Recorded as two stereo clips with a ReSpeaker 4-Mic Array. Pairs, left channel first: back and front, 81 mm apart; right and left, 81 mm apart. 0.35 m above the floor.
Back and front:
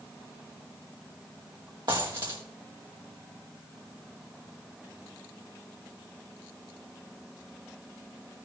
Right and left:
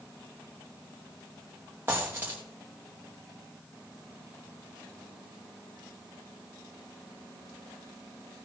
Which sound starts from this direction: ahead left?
A dropped coin, at 1.9 s.